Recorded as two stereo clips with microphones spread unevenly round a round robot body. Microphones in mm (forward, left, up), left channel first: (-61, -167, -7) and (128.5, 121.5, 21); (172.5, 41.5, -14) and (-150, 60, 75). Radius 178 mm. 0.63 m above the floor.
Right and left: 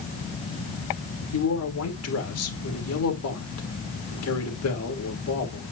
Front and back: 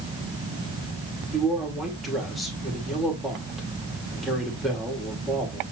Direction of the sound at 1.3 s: 85° right.